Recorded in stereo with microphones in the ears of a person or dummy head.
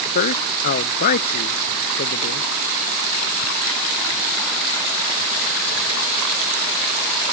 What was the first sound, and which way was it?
A man speaking, 55° left (ahead or behind).